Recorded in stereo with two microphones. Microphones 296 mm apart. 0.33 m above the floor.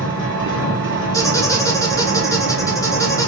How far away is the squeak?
About 1.0 m.